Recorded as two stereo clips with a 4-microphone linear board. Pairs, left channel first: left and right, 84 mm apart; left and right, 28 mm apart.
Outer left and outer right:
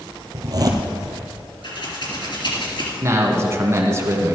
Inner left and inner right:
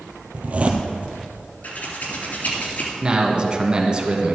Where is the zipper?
50° right (ahead or behind), 1.5 m.